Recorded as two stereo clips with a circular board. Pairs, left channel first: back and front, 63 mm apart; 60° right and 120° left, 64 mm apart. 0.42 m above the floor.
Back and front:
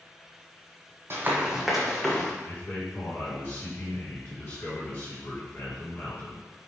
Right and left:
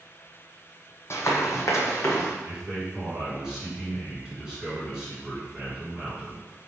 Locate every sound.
1.1 s running footsteps: 35° right, 0.7 m; by 2.3 s 100° right, 1.4 m
2.5 s a man speaking: 165° right, 1.7 m